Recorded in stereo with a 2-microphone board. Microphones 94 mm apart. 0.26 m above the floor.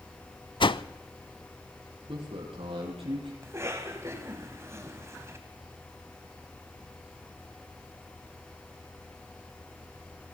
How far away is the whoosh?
About 0.6 m.